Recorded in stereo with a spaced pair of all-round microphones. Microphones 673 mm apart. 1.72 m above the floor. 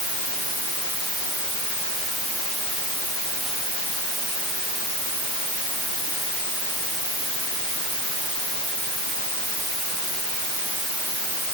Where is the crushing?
I don't hear crushing.